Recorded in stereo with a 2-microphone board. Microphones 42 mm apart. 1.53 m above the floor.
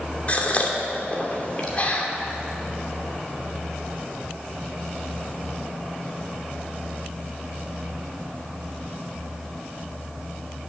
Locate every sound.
0.3 s a gasp: 35° left (ahead or behind), 2 m